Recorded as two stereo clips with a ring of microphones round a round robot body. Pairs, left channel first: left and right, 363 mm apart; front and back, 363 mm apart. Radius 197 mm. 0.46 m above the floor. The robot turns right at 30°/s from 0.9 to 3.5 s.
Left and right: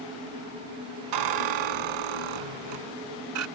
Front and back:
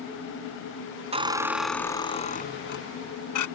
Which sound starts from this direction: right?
A squeak, at 1.1 s.